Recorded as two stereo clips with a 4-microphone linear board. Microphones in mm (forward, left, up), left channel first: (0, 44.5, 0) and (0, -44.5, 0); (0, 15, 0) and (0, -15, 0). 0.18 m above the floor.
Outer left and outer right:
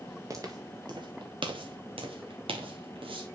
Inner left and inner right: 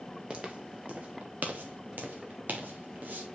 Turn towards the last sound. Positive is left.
turn(degrees=-75)  # may be behind; listen again after turning